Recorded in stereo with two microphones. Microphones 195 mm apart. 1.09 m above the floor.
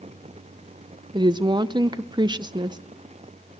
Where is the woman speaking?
25° right (ahead or behind), 0.7 m.